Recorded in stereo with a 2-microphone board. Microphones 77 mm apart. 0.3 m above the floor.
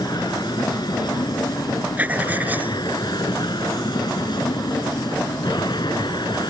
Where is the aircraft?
65° left (ahead or behind); by 6.5 s 70° left (ahead or behind).